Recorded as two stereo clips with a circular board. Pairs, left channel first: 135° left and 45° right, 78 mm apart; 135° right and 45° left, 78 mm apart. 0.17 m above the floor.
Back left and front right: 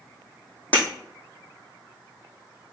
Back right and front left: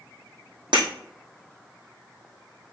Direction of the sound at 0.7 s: 65° left.